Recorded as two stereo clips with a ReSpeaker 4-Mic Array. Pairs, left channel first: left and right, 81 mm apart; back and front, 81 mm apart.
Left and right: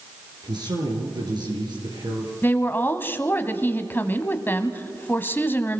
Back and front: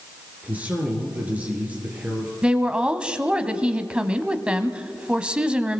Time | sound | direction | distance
0.4 | a man speaking | 70° right | 4 m
2.4 | a woman speaking | 65° left | 1.2 m